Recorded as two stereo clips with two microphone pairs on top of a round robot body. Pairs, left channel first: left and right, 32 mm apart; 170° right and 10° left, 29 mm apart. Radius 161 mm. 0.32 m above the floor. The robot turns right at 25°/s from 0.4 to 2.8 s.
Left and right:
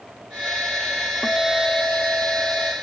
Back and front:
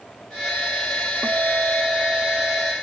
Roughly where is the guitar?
Ahead left.